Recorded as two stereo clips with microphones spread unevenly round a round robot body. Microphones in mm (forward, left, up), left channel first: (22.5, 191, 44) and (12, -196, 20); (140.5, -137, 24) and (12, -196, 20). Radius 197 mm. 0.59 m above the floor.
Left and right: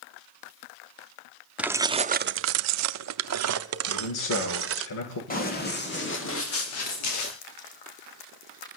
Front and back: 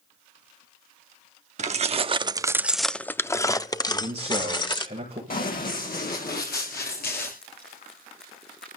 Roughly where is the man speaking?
Behind left.